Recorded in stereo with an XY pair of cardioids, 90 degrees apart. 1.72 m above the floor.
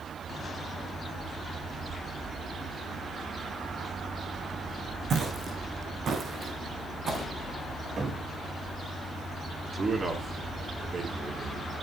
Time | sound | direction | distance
5.1 | footsteps | 60° right | 6.5 m
8.0 | a cupboard door | 45° right | 4 m
9.7 | a man speaking | 35° right | 4 m